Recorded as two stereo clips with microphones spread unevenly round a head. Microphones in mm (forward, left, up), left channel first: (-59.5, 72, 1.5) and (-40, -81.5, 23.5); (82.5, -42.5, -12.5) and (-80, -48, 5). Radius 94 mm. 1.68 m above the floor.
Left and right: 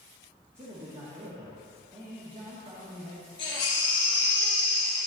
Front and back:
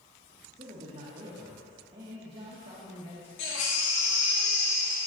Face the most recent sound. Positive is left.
turn(degrees=30)